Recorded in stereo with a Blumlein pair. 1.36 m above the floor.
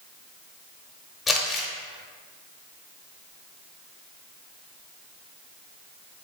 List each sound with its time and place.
1.3 s crumpling: 15° left, 0.9 m